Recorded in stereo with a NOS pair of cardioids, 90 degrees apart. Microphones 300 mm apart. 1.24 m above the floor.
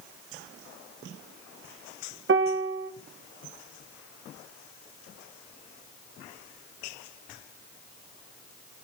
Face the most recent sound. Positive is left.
turn(degrees=-40)